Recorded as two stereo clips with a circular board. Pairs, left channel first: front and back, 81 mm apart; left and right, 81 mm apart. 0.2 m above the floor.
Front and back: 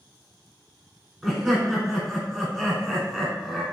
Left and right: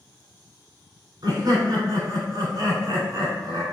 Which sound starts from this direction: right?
Laughter, at 1.2 s.